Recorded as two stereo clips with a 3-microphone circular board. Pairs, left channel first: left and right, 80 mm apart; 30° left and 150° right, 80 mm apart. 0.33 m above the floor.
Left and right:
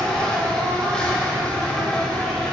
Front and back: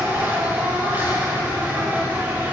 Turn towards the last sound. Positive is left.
turn(degrees=160)